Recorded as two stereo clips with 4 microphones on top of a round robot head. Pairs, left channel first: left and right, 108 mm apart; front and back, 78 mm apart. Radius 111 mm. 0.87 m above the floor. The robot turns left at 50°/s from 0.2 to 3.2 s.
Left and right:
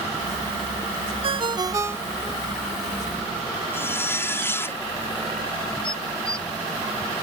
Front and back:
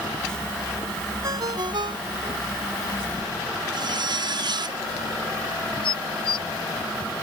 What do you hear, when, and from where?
1.2 s a ringtone: 125° right; by 2.4 s straight behind
3.7 s a zipper: 160° left
5.8 s dishes clattering: 5° left